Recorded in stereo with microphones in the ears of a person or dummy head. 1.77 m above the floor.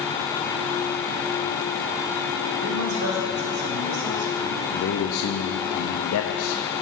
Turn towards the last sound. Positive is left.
turn(degrees=80)